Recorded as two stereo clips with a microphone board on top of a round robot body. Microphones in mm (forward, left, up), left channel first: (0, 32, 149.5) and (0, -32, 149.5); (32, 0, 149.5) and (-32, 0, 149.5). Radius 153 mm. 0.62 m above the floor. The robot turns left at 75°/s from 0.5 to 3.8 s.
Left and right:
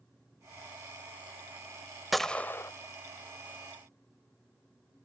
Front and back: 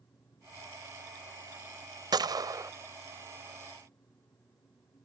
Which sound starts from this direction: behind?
A gunshot, at 2.1 s.